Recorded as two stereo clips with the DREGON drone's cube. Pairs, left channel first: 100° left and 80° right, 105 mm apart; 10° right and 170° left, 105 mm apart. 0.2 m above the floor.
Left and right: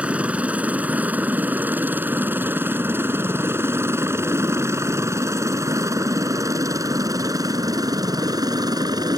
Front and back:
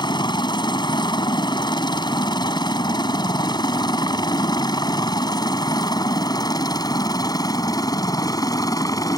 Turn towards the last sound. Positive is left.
turn(degrees=-50)